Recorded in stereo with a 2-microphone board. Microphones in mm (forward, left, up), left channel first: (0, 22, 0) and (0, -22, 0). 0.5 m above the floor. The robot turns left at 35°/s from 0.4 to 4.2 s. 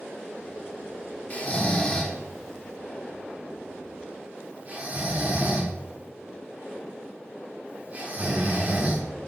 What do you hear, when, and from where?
1.3 s snoring: 30° left (ahead or behind), 1.2 m; by 9.0 s 30° right (ahead or behind), 1.2 m